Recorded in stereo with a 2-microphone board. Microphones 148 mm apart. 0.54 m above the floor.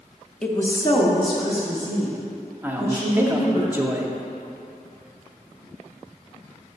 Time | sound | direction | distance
0.4 | a woman speaking | 5° left (ahead or behind) | 0.6 m
2.6 | a man speaking | 15° right (ahead or behind) | 0.6 m